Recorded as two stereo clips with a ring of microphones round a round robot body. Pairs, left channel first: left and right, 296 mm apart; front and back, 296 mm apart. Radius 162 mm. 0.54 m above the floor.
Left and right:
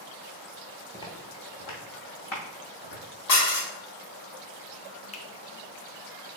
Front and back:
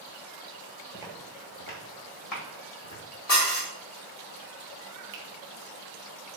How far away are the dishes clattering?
About 1.1 m.